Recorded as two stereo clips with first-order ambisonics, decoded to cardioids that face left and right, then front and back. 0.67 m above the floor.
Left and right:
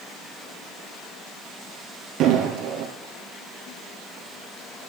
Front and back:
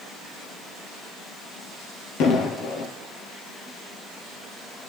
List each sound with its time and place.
2.2 s an explosion: 45° right, 2.5 m